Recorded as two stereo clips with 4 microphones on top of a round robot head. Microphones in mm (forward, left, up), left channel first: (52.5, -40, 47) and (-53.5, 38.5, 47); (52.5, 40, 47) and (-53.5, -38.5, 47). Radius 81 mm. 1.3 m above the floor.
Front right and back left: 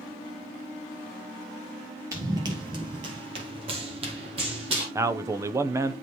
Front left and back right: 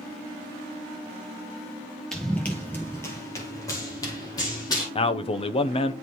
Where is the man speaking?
80° left, 0.6 m.